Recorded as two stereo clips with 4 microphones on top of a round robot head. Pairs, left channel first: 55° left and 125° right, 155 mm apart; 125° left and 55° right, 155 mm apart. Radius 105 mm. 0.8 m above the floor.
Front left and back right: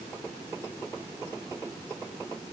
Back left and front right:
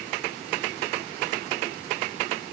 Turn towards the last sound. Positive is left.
No sound to turn to.